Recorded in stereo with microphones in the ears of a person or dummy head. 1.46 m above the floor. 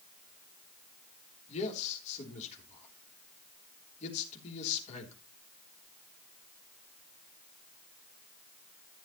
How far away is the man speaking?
About 3.5 m.